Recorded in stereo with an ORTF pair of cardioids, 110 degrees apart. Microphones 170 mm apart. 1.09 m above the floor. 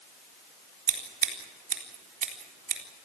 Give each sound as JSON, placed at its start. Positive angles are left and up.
{"t": 0.9, "sound": "scissors", "azimuth_deg": -55, "distance_m": 4.0}